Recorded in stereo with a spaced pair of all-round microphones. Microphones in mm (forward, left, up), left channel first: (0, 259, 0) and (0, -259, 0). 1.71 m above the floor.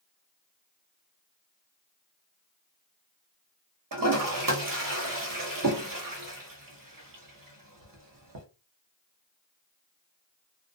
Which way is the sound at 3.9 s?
40° right (ahead or behind).